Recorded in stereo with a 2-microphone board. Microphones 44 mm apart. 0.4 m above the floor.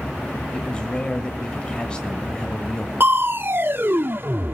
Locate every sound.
0.5 s a man speaking: 20° left (ahead or behind), 1.6 m
3.0 s crushing: 50° right (ahead or behind), 0.6 m